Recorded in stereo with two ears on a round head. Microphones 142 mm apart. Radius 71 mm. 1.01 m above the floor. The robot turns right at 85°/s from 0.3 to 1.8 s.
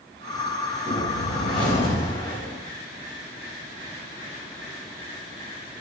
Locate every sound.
0.9 s a whoosh: 60° left, 5 m; by 2.6 s 140° left, 5 m